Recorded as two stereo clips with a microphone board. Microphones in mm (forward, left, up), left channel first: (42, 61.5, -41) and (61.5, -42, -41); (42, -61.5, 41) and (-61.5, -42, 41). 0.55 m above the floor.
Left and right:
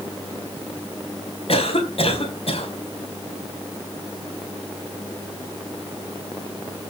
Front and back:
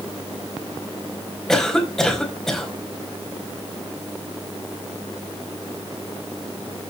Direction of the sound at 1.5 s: 75° left.